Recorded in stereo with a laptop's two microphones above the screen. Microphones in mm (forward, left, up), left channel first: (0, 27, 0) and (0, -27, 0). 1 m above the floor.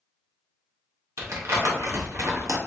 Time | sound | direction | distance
1.2 | crumpling | 65° right (ahead or behind) | 1.1 m